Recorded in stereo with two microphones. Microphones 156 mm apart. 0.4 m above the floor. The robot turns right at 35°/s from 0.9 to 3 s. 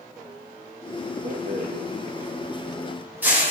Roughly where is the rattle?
Right.